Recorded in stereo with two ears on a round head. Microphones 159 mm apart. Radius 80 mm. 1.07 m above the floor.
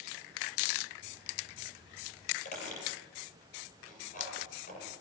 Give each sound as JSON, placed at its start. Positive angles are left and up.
{"t": 2.5, "sound": "a squeak", "side_deg": 45, "distance_m": 8.0}